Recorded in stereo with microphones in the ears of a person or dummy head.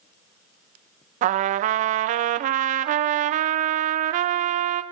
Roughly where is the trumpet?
Right.